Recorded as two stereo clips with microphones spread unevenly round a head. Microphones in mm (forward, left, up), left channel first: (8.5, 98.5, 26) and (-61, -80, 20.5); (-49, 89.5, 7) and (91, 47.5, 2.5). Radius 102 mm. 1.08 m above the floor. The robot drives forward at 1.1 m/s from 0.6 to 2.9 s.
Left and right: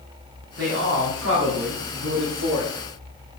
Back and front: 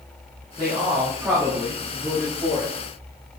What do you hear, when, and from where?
0.6 s a man speaking: 75° right, 2.5 m; by 2.7 s 130° right, 3 m